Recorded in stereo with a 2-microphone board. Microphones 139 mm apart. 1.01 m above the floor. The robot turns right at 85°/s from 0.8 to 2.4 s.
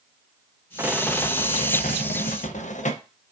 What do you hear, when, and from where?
0.8 s a rattle: 15° right, 0.5 m; by 3.0 s 120° left, 0.5 m